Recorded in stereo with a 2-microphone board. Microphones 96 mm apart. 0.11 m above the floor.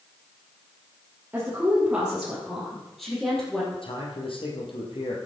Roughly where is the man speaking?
Left.